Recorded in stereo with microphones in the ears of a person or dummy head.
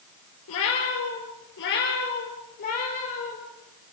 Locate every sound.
0.5 s a cat meowing: 70° left (ahead or behind), 4.5 m; by 3.4 s 35° left (ahead or behind), 6 m